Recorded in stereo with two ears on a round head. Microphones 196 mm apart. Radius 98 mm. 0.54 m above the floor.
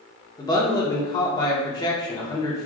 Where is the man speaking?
20° left (ahead or behind), 0.8 m.